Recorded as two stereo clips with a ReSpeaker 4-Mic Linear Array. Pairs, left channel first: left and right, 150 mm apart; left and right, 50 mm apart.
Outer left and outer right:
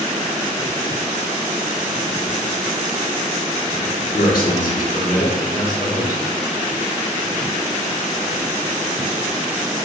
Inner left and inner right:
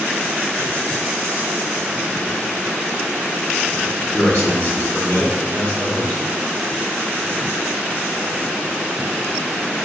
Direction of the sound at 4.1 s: 70° left (ahead or behind).